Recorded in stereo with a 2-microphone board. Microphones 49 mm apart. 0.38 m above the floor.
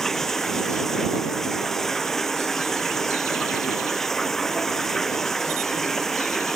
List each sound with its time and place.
0.0 s running water: 5° left (ahead or behind)